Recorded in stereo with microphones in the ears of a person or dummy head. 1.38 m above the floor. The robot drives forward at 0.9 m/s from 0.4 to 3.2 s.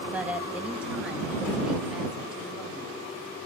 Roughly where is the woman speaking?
Centre.